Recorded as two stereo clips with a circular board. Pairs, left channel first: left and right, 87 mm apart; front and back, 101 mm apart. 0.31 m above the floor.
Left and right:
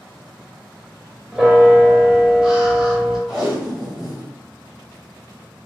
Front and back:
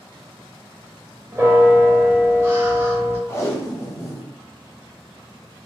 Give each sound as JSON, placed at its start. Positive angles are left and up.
{"t": 1.3, "sound": "a bell", "azimuth_deg": -160, "distance_m": 0.8}
{"t": 3.3, "sound": "tape being pulled", "azimuth_deg": -10, "distance_m": 1.1}